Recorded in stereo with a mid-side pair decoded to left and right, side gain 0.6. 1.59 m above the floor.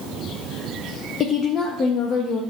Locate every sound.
1.2 s a woman speaking: 45° left, 0.6 m